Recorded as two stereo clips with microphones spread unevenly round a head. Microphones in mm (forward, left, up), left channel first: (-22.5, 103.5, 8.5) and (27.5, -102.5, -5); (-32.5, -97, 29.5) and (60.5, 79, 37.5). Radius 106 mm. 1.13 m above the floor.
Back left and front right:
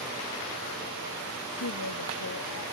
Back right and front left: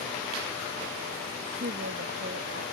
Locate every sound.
1.6 s a woman speaking: 105° left